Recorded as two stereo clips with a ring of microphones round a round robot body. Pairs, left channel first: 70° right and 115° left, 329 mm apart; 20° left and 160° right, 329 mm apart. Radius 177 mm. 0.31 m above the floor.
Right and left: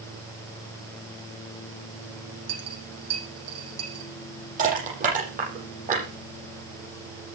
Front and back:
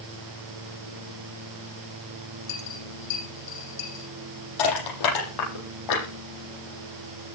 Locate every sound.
2.5 s a dropped coin: 65° left, 9 m
4.6 s crushing: 45° left, 9.5 m